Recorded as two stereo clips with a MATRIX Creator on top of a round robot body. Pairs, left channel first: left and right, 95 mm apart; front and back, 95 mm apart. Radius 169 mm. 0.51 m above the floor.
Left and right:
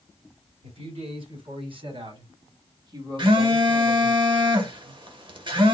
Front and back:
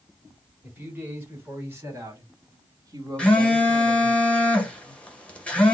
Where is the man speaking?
105° right, 3 m; by 4.2 s 165° right, 1.5 m.